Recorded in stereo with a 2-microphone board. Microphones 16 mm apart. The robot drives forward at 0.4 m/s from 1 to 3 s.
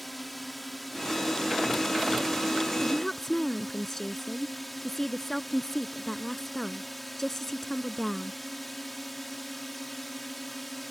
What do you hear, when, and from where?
0.0 s a drone: 10° left (ahead or behind)
2.8 s a woman speaking: 25° left (ahead or behind)